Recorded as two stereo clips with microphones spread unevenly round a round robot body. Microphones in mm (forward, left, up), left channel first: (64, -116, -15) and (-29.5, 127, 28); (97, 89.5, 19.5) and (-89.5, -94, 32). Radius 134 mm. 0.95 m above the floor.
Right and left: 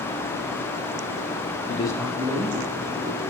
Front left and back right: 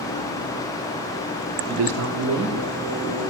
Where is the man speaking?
100° right, 0.6 m; by 3.3 s 165° left, 2 m.